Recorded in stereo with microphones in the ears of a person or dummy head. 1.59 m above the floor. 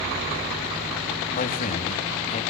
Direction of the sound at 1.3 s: 45° left (ahead or behind).